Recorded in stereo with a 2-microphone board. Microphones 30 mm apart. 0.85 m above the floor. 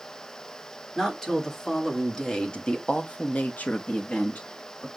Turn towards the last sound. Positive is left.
turn(degrees=50)  # may be behind; listen again after turning